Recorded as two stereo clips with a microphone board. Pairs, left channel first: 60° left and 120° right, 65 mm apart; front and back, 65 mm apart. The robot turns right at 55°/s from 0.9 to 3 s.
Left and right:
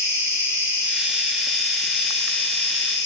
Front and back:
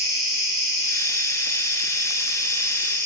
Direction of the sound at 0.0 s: 65° right.